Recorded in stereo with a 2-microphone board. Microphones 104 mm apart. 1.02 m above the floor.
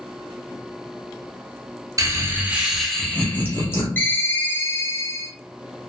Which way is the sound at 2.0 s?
35° right (ahead or behind).